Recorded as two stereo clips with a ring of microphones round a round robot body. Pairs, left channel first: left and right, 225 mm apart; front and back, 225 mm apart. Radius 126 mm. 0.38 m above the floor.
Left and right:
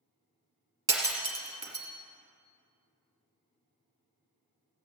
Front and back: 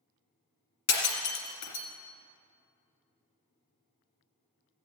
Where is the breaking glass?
15° right, 2.5 m.